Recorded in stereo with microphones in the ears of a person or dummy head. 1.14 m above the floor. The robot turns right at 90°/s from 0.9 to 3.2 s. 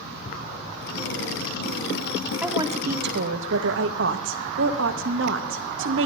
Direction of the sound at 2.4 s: 175° right.